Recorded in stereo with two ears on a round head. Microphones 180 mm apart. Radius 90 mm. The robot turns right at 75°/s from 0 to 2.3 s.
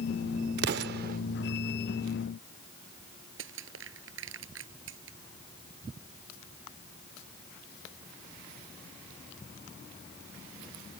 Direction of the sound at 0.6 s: 55° right (ahead or behind).